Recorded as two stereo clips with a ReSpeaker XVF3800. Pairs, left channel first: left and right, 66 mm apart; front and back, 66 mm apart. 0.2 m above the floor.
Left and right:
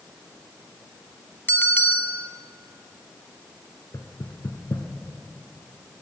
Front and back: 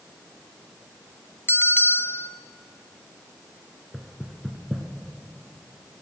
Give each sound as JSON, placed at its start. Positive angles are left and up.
{"t": 1.5, "sound": "a bell", "azimuth_deg": 35, "distance_m": 0.8}
{"t": 3.9, "sound": "knocking", "azimuth_deg": 90, "distance_m": 1.4}